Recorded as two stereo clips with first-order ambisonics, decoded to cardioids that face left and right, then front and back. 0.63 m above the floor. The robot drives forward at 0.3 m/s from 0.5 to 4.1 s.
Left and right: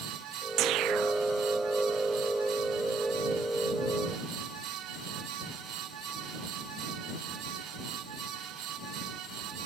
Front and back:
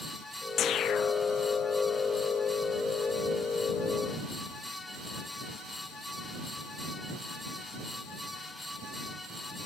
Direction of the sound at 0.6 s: 50° right.